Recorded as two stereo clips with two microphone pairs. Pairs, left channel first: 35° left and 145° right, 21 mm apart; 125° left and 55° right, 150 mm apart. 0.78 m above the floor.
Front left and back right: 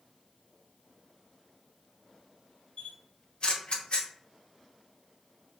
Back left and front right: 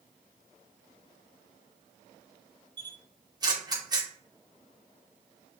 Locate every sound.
2.8 s a camera shutter: 15° left, 0.6 m